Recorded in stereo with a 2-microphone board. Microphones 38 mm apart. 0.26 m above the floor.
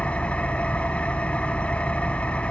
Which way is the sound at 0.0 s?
30° left (ahead or behind).